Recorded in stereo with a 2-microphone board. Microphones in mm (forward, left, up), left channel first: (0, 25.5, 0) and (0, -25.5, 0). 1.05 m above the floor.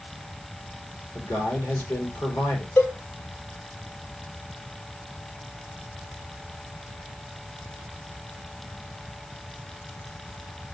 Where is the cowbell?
65° left (ahead or behind), 2 m.